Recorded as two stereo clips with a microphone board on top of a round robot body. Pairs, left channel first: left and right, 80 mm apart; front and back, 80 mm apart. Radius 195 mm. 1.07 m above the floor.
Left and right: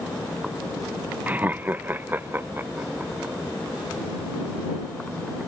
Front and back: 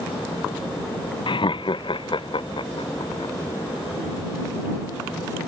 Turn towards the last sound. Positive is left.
turn(degrees=-20)